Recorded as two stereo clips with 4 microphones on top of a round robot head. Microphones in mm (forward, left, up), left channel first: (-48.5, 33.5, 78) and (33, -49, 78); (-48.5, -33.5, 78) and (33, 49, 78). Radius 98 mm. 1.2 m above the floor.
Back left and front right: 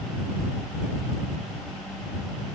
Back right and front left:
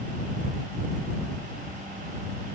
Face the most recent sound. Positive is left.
No sound to turn to.